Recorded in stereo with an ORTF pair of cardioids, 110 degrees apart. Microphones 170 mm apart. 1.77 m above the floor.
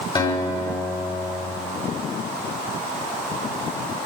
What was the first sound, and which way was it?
A guitar, 30° left.